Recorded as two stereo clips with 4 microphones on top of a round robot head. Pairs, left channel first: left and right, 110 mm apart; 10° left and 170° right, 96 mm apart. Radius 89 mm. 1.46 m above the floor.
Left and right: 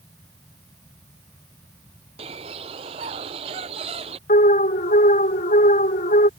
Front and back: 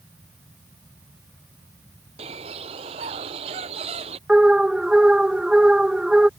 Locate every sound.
2.2 s a bird: 135° right
4.3 s an alarm: 105° left